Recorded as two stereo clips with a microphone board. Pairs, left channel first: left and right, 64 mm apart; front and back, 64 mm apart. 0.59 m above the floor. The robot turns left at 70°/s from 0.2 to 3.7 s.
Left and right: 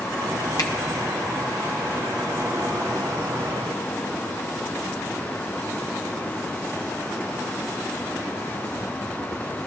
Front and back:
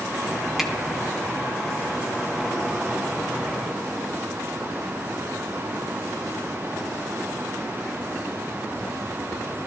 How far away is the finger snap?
About 1.0 m.